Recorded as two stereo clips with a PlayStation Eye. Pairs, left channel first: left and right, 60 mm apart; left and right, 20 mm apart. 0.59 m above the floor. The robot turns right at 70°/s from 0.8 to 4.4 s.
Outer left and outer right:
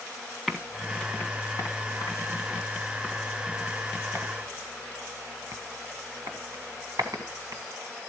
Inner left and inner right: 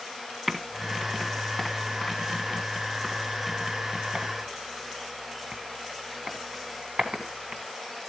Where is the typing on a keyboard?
Centre (ahead or behind), 1.8 m; by 7.6 s 75° right (ahead or behind), 1.8 m.